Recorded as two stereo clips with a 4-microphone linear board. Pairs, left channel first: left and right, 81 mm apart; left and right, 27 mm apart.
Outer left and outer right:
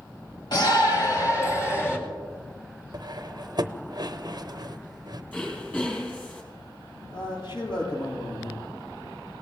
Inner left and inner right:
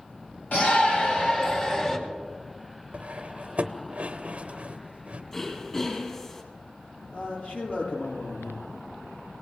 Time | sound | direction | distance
0.5 | a shout | 60° left (ahead or behind) | 3 m
2.9 | cutlery clinking | 55° right (ahead or behind) | 0.7 m
5.3 | throat clearing | 20° left (ahead or behind) | 3 m
7.1 | a man speaking | 80° left | 9 m